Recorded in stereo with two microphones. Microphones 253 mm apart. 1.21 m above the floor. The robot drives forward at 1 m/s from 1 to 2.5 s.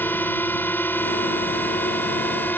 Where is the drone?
5° left (ahead or behind).